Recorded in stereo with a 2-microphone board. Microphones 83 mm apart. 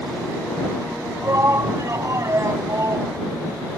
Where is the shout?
40° right (ahead or behind).